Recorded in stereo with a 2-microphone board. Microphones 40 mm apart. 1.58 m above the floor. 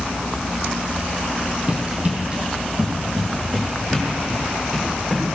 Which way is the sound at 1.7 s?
30° right (ahead or behind).